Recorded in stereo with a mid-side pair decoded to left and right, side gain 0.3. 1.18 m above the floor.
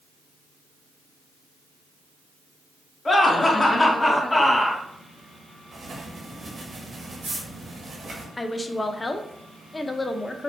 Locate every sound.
3.0 s laughter: 35° left, 2.0 m; by 4.8 s 25° left, 1.1 m
5.7 s writing: 55° right, 1.6 m
8.4 s a woman speaking: 30° left, 0.7 m